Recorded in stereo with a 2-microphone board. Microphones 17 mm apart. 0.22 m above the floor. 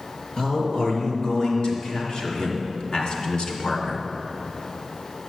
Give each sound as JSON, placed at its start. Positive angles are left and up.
{"t": 0.4, "sound": "a man speaking", "side_deg": 40, "distance_m": 4.5}